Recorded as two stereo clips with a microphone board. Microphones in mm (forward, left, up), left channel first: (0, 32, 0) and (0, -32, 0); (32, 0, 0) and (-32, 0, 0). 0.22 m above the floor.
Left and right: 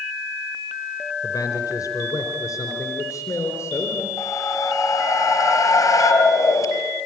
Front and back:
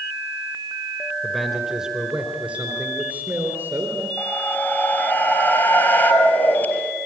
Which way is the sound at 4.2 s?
60° left.